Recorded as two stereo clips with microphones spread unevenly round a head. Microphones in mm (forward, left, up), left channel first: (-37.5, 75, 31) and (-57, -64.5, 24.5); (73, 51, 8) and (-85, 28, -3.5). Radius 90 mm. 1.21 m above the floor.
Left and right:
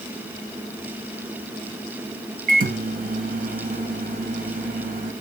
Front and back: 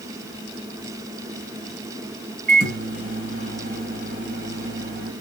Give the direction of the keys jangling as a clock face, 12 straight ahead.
I don't hear keys jangling.